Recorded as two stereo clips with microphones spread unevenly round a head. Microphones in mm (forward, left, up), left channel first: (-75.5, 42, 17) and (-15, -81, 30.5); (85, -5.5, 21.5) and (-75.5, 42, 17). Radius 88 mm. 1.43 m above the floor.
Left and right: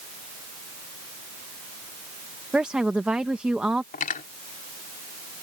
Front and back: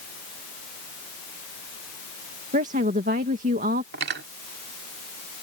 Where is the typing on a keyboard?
I don't hear typing on a keyboard.